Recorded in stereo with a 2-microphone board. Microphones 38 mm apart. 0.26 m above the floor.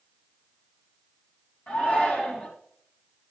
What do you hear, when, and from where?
1.7 s a shout: 50° left (ahead or behind), 2.5 m